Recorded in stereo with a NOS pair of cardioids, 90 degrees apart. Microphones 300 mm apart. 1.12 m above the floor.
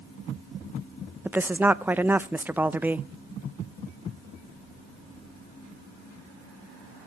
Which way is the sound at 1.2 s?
5° right.